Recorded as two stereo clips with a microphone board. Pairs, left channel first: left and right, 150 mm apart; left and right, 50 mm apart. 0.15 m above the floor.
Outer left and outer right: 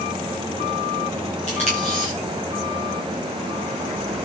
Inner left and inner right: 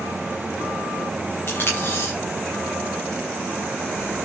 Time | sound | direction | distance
1.5 | tape being pulled | 50° left (ahead or behind) | 7 m